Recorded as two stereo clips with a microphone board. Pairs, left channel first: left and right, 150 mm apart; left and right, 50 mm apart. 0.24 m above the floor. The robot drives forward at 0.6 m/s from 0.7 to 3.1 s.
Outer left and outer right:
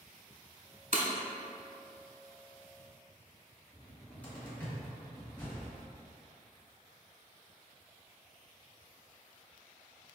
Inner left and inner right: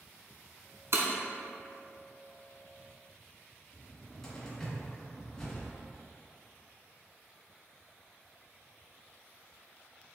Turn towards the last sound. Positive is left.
turn(degrees=10)  # may be behind; listen again after turning